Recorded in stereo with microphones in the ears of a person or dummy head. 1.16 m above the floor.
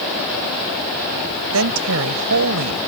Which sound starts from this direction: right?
A woman speaking, at 1.5 s.